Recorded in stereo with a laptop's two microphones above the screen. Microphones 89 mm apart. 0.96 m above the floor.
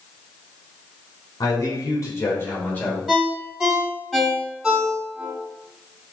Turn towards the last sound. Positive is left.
turn(degrees=-10)  # may be behind; listen again after turning